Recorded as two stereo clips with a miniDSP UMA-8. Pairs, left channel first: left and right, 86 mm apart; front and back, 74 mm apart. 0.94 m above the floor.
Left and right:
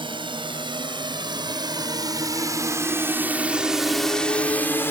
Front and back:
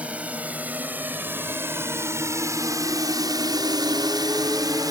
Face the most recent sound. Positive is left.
turn(degrees=150)